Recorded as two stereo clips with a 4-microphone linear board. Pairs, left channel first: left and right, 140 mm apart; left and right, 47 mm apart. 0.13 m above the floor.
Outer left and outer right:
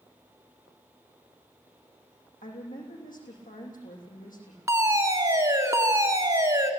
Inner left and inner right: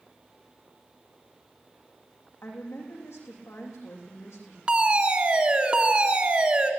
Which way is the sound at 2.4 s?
80° left.